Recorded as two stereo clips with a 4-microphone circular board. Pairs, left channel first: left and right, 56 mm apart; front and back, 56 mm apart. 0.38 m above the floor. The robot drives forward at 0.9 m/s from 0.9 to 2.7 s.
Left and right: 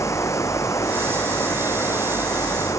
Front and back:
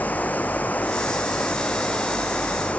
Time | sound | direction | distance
0.0 | running water | 65° left | ?